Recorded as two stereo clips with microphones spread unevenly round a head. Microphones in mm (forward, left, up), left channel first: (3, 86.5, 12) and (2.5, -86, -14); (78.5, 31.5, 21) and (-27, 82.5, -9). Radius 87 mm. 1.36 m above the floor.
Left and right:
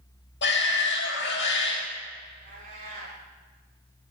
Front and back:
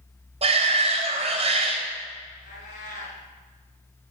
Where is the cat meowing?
35° right, 6 m.